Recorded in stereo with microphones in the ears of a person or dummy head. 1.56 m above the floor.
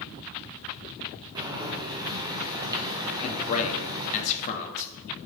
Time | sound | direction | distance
1.4 | boiling | 25° right (ahead or behind) | 0.8 m
3.2 | a man speaking | 45° left (ahead or behind) | 0.8 m